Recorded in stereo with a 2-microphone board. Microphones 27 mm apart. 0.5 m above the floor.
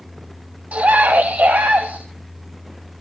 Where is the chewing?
I don't hear chewing.